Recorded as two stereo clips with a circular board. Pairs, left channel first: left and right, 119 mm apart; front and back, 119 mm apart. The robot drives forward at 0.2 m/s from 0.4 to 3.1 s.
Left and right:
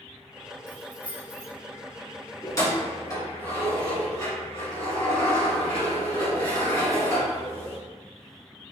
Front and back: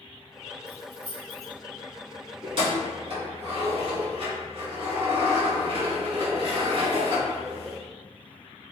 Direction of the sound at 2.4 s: 145° left.